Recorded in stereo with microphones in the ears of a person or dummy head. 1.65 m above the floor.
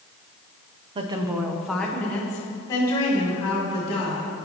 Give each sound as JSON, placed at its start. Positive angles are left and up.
{"t": 0.9, "sound": "a woman speaking", "side_deg": -40, "distance_m": 0.6}